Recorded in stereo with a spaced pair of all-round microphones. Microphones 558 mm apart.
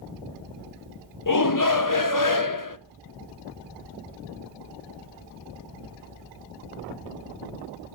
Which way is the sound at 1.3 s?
35° left (ahead or behind).